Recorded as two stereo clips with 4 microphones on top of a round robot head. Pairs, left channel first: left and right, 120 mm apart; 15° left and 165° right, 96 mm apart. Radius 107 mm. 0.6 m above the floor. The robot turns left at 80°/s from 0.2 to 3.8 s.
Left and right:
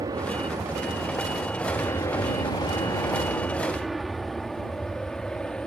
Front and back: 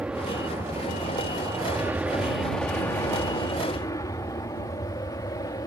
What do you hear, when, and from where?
0.0 s an aircraft: 100° right; by 5.7 s 10° left